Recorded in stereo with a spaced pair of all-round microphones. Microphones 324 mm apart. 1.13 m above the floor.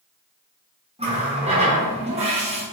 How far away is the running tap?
About 0.8 m.